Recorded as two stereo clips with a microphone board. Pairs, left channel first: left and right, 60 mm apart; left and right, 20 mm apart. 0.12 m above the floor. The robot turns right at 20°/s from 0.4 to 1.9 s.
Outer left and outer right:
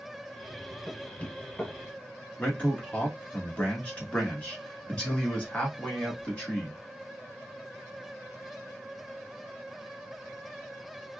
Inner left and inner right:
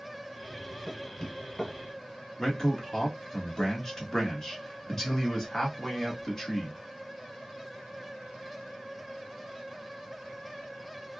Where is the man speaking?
20° left (ahead or behind), 1.3 m.